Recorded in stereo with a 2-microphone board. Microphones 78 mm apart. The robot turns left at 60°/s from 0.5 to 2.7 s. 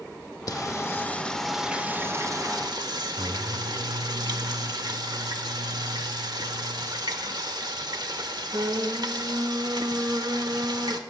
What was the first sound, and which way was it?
Singing, 60° left.